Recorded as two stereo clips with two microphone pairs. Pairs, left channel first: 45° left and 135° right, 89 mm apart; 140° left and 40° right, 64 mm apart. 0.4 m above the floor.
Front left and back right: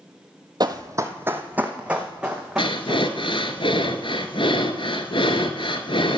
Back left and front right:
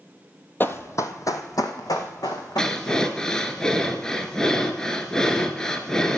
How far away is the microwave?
I don't hear a microwave.